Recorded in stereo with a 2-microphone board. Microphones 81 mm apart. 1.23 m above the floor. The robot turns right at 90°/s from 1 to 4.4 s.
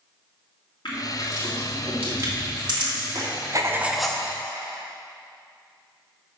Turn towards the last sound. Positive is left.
turn(degrees=35)